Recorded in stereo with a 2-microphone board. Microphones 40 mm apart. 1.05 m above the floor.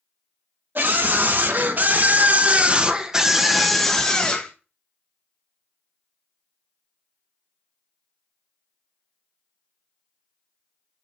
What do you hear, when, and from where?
0.8 s a scream: 60° right (ahead or behind), 1.6 m; by 4.5 s 20° left (ahead or behind), 1.1 m